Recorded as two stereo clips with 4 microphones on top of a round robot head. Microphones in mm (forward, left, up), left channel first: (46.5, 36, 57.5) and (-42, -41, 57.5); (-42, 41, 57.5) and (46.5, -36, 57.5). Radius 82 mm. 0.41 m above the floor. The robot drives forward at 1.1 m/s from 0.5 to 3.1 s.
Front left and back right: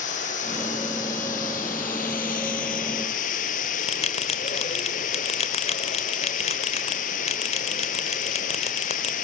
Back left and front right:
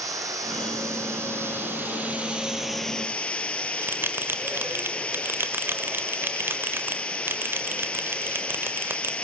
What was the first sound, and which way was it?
Running water, 20° left.